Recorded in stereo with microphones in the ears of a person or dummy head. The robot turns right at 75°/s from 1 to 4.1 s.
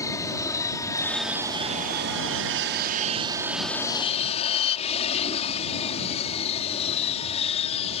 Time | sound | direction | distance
0.0 | an aircraft | 165° left | ?